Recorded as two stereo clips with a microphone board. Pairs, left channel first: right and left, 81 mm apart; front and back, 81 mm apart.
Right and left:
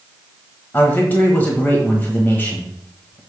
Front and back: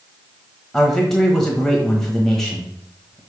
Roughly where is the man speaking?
Right.